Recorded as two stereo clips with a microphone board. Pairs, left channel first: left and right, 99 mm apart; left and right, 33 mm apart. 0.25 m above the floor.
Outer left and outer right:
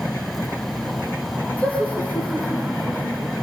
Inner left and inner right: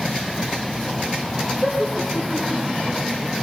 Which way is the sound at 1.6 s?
15° left (ahead or behind).